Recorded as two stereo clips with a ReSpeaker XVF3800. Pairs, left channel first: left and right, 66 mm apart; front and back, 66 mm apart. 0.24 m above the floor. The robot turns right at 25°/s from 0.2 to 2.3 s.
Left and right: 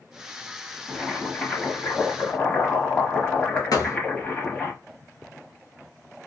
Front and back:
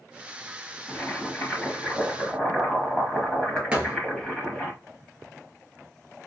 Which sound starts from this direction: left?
A thud, at 3.7 s.